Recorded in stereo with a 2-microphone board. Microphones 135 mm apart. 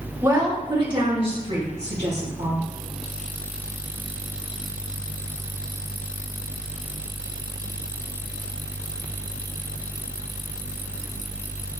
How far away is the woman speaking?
About 1.5 m.